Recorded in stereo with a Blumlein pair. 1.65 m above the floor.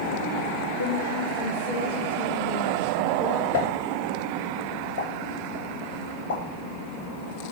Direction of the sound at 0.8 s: 65° left.